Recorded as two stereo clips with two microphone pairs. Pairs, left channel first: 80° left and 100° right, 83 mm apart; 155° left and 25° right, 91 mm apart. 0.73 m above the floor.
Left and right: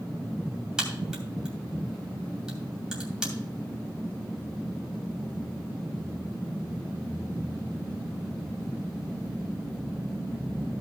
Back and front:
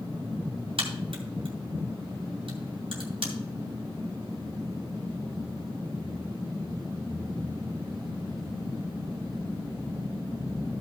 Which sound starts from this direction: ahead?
A crack, at 0.8 s.